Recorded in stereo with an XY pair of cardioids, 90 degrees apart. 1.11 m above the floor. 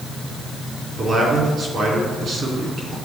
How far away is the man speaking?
About 3 m.